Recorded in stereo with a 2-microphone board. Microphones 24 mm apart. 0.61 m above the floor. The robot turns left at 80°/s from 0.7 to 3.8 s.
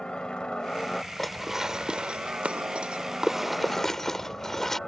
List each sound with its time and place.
0.0 s a helicopter: 45° left; by 4.9 s 155° left
1.2 s dishes clattering: 10° left (ahead or behind); by 4.8 s 15° left (ahead or behind)